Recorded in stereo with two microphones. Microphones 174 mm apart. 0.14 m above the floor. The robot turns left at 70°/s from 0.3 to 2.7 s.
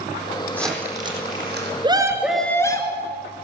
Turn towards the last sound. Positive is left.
turn(degrees=155)